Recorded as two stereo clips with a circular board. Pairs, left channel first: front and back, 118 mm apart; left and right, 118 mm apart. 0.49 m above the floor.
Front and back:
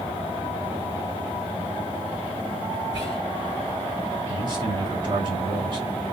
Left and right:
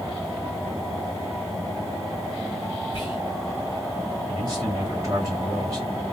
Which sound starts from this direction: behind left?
Whispering, at 2.9 s.